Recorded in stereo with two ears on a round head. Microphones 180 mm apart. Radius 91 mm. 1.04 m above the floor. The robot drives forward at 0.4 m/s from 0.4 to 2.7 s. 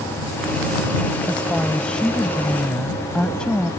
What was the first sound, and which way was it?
A woman speaking, 5° left (ahead or behind).